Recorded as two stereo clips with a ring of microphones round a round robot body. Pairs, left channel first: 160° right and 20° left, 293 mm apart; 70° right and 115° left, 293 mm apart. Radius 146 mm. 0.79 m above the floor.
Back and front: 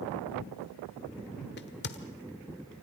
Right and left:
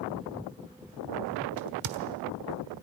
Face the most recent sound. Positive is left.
turn(degrees=145)